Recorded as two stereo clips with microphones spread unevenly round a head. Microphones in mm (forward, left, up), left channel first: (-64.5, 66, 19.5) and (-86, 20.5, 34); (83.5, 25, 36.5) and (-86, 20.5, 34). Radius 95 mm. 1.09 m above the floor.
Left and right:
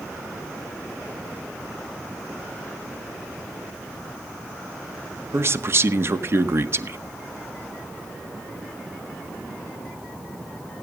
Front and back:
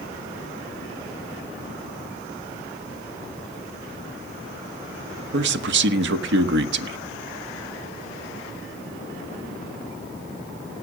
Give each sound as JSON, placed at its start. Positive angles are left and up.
{"t": 5.3, "sound": "a man speaking", "azimuth_deg": -155, "distance_m": 1.7}